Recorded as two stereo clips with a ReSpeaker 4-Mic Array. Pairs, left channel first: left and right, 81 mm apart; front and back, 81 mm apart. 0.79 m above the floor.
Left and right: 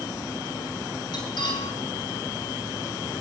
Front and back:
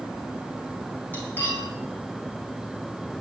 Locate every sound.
1.1 s cutlery clinking: 65° left, 4.5 m